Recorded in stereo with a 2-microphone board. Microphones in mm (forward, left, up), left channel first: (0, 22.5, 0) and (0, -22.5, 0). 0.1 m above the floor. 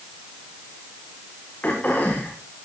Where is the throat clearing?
35° left (ahead or behind), 7 m.